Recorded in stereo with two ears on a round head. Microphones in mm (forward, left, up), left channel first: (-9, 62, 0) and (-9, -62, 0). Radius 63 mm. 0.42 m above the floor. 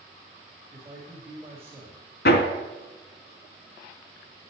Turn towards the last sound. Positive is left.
turn(degrees=75)  # may be behind; listen again after turning